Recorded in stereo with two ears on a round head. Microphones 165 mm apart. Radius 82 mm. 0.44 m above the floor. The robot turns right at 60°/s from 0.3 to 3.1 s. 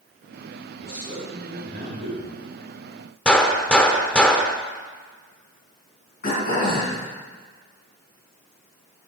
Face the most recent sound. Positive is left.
turn(degrees=50)  # may be behind; listen again after turning